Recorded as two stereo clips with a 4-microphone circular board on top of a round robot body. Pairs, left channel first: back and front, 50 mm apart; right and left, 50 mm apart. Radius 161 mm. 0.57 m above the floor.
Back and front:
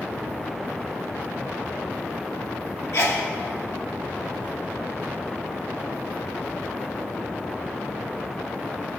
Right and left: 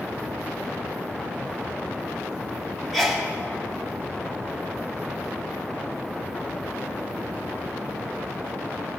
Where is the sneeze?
Straight behind, 2.5 m.